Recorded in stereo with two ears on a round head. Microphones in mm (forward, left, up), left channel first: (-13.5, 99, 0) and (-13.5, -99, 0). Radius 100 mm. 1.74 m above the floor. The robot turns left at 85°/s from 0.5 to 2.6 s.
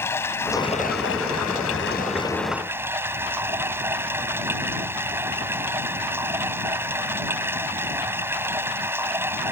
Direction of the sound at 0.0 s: 170° left.